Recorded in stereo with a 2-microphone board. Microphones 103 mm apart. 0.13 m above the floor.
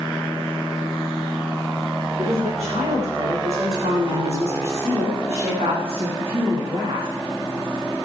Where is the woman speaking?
80° right, 7.5 m; by 7.1 s 50° right (ahead or behind), 7 m.